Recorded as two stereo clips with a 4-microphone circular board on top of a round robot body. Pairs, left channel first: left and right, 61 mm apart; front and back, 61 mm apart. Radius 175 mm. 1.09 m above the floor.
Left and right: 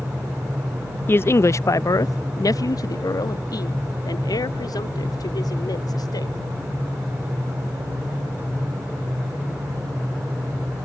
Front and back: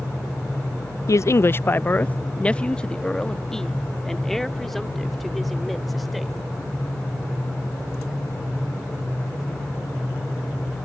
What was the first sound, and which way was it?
A man speaking, 35° left.